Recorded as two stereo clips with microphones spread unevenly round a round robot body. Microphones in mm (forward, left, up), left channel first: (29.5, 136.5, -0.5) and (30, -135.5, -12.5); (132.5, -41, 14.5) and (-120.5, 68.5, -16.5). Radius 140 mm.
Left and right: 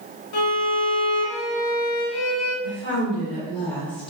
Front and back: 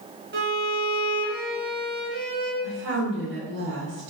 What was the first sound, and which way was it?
A violin, 100° left.